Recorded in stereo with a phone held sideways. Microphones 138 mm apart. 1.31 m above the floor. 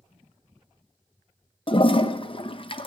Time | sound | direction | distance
1.7 | a toilet flushing | 40° left (ahead or behind) | 0.6 m